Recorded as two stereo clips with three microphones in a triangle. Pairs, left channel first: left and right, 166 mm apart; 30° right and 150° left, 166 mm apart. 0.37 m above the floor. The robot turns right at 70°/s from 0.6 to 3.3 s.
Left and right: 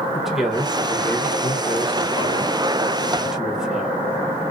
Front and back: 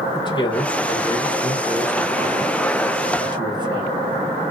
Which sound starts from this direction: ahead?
A man speaking, at 0.1 s.